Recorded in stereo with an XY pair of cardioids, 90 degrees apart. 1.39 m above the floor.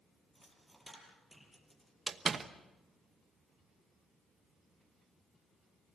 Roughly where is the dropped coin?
Ahead.